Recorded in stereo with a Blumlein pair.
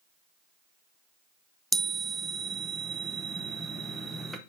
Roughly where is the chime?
Ahead.